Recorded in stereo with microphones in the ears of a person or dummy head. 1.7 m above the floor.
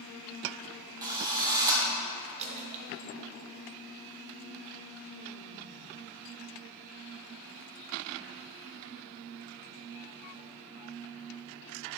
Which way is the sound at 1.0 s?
15° right (ahead or behind).